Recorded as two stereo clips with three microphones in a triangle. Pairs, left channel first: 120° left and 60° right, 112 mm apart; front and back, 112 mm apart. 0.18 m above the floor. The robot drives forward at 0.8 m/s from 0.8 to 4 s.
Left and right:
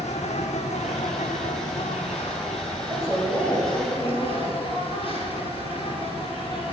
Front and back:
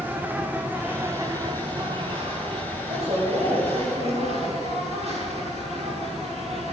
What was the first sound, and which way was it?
An insect, 105° left.